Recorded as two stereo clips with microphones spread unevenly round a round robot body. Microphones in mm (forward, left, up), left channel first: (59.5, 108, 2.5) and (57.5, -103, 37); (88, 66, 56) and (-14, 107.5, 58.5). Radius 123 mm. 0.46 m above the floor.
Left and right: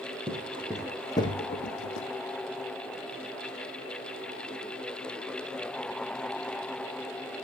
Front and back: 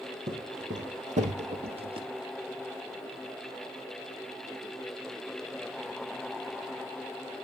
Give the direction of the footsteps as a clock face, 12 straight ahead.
5 o'clock.